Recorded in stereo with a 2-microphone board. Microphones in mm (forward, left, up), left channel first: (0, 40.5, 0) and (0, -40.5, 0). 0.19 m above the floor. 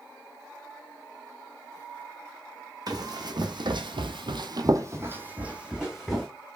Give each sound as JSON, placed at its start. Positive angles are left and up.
{"t": 2.9, "sound": "running footsteps", "side_deg": -50, "distance_m": 0.9}